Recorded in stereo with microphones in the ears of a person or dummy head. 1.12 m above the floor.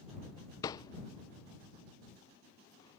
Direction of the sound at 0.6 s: 25° left (ahead or behind).